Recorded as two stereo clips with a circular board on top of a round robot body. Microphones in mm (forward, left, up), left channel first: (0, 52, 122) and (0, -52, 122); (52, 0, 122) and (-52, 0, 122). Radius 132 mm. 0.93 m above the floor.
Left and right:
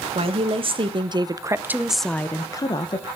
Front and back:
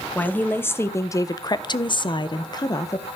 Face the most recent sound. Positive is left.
turn(degrees=55)